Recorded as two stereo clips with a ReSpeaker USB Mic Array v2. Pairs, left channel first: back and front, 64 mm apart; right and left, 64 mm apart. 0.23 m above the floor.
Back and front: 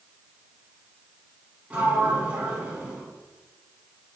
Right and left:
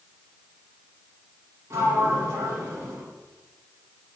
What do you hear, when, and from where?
1.7 s a sliding door: 65° left, 0.7 m